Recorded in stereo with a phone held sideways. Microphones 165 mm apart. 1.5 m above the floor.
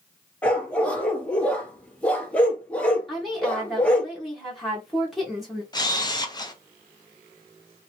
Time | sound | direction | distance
0.4 | a dog barking | 10° left (ahead or behind) | 0.9 m
3.1 | a woman speaking | centre (ahead or behind) | 1.2 m
5.7 | a camera shutter | 25° left (ahead or behind) | 0.7 m